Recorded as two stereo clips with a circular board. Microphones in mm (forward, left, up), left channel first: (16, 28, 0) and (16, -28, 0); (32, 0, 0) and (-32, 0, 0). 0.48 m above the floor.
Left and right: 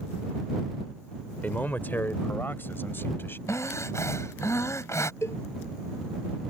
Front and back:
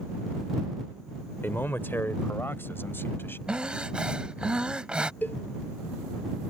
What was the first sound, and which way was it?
A man speaking, 45° left.